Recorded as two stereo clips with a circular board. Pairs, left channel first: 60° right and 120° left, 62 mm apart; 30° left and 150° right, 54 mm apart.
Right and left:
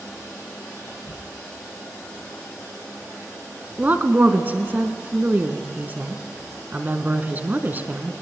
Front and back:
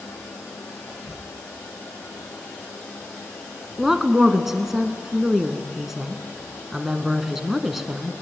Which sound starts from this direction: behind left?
A woman speaking, at 3.8 s.